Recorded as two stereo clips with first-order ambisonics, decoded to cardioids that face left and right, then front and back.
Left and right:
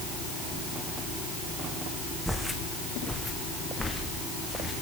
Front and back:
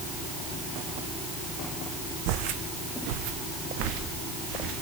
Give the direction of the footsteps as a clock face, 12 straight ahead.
6 o'clock.